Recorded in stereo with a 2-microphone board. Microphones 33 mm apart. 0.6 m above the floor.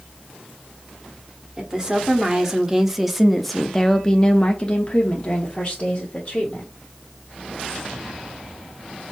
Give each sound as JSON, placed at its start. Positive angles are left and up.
{"t": 1.6, "sound": "a woman speaking", "side_deg": -25, "distance_m": 1.4}